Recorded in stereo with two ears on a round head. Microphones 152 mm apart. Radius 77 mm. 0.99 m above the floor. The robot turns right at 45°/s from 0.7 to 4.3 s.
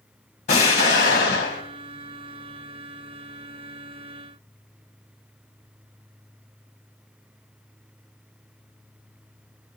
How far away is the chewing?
No chewing in this recording.